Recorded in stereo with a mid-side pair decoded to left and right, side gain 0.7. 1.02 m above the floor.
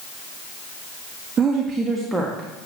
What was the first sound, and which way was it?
A woman speaking, 30° right.